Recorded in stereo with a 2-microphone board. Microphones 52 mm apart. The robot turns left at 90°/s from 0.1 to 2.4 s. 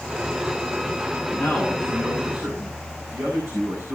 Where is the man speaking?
40° left, 7.5 m; by 4.0 s 55° right, 7.5 m.